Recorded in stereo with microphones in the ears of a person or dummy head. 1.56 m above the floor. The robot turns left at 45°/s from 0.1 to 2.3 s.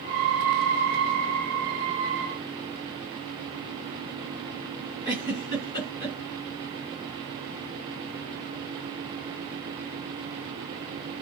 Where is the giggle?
20° left (ahead or behind), 2 m.